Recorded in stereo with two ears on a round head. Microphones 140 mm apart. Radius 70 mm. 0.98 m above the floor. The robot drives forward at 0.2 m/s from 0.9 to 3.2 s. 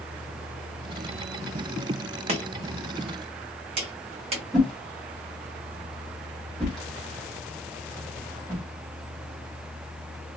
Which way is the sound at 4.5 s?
5° left (ahead or behind).